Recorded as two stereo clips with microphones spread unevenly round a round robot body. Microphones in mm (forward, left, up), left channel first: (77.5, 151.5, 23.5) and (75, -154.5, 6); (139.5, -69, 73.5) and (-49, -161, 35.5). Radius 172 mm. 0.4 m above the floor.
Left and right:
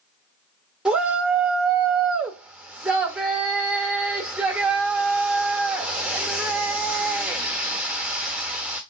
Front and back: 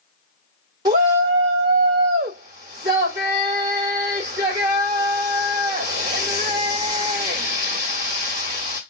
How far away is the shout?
About 1.1 m.